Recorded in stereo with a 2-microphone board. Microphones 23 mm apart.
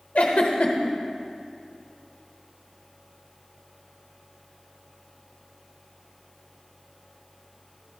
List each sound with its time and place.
0.1 s a giggle: 65° left (ahead or behind), 1.0 m